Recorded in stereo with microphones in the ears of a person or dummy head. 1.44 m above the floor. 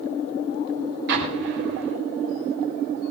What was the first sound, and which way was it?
An explosion, 65° right (ahead or behind).